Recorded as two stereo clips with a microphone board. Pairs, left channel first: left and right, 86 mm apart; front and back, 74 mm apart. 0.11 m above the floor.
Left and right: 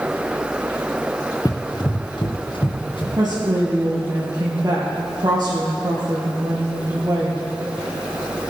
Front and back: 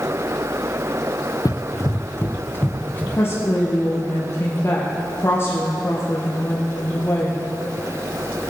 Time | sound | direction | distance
1.4 | running footsteps | 40° left | 0.6 m
3.1 | a woman speaking | 50° right | 2.5 m